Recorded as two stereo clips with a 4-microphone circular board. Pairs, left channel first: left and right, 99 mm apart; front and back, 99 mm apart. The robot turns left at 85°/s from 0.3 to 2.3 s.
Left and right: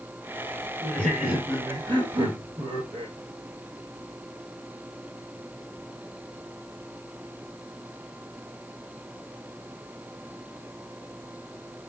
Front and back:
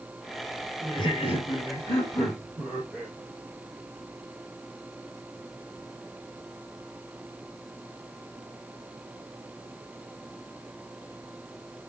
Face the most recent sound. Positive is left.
turn(degrees=-95)